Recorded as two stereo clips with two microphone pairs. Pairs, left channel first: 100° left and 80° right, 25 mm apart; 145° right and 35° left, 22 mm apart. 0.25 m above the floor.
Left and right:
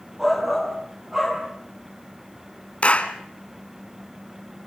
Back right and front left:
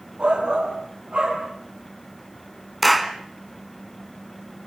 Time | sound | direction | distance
0.2 | a shout | straight ahead | 8 m
2.8 | a clap | 130° left | 2.0 m